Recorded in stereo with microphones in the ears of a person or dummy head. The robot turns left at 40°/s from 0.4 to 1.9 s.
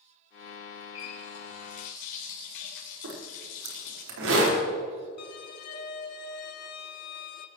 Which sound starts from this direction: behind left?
A running tap, at 0.9 s.